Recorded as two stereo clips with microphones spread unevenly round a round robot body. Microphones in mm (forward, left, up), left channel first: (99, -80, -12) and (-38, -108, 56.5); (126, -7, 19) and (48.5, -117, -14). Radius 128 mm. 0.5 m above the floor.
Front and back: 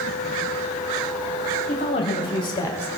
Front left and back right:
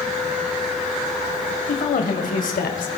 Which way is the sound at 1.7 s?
40° left.